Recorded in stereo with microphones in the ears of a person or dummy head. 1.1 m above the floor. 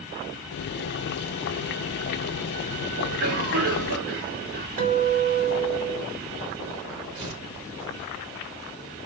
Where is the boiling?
55° left (ahead or behind), 0.5 m.